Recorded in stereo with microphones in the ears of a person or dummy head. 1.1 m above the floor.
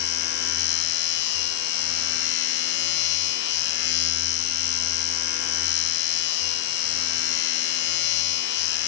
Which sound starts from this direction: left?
A machine running, at 0.0 s.